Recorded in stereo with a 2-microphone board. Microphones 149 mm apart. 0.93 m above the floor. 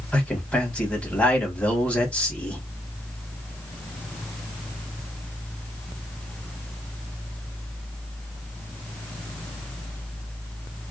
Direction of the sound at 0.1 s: 5° left (ahead or behind).